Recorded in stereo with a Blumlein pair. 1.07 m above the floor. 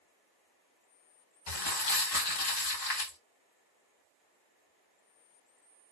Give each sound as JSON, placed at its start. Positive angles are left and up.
{"t": 1.5, "sound": "crumpling", "azimuth_deg": 50, "distance_m": 1.4}